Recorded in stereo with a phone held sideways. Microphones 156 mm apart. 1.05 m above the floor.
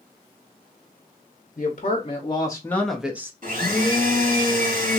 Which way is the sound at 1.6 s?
50° left (ahead or behind).